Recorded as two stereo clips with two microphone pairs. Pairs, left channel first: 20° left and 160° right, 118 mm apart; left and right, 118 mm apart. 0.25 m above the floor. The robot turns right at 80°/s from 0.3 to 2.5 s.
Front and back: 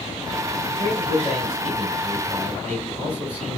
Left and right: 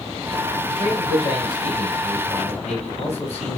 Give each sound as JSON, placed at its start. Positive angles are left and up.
{"t": 0.7, "sound": "a man speaking", "azimuth_deg": -30, "distance_m": 3.5}